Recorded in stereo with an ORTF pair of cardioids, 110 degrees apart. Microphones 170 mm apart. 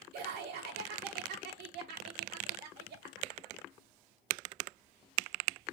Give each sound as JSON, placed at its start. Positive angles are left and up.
{"t": 0.1, "sound": "laughter", "azimuth_deg": -70, "distance_m": 0.8}